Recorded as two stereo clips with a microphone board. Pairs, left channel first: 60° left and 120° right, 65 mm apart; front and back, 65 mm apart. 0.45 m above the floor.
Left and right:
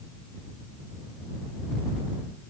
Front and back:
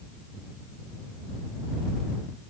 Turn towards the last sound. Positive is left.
No sound to turn to.